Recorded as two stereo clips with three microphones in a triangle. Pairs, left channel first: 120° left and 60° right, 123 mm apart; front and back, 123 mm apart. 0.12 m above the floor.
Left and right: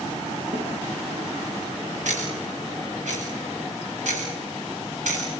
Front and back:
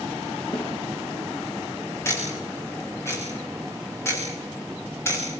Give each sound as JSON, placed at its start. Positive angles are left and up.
{"t": 0.5, "sound": "a snare drum", "azimuth_deg": -40, "distance_m": 10.0}
{"t": 2.0, "sound": "ticking", "azimuth_deg": -70, "distance_m": 5.5}